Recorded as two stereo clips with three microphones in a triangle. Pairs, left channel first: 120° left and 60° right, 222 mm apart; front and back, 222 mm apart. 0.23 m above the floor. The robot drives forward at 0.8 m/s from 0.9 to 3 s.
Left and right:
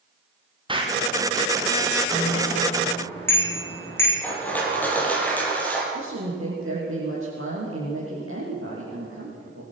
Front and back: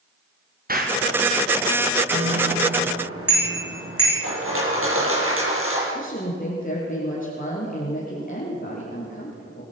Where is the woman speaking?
50° right, 5.5 m.